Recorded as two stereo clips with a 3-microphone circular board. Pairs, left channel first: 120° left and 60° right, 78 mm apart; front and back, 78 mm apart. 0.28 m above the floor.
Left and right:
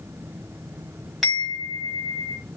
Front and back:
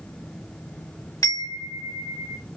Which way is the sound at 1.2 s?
30° left.